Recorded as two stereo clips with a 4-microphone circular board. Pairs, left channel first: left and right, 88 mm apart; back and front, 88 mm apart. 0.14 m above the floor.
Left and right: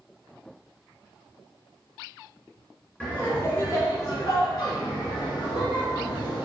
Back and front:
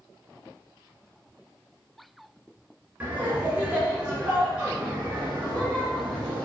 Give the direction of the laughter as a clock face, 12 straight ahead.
11 o'clock.